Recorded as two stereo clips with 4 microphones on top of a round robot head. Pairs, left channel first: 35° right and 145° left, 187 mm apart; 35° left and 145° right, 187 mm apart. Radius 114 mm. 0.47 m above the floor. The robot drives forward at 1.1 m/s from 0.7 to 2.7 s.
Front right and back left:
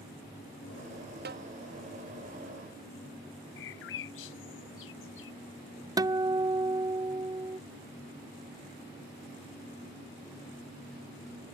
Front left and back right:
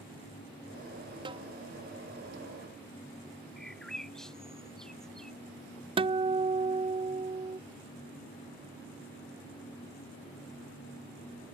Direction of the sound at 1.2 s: 155° left.